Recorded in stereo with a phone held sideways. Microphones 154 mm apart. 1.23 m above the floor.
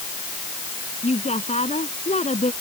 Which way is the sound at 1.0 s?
45° left (ahead or behind).